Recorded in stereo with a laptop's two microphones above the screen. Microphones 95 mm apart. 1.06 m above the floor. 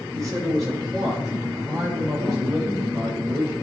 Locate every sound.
0.1 s a man speaking: 35° right (ahead or behind), 4 m